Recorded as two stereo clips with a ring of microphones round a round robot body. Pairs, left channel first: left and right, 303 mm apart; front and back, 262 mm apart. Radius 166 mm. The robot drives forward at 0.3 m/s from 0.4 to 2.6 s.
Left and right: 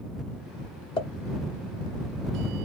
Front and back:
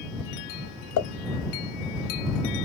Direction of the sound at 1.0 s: 15° left.